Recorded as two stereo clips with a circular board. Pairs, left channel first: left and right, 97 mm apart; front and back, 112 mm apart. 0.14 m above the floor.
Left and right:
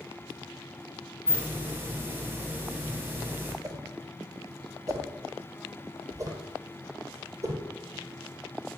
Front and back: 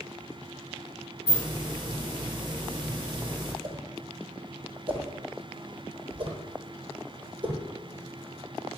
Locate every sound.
1.3 s a hiss: 155° right, 1.0 m
3.6 s a whoosh: 140° right, 0.9 m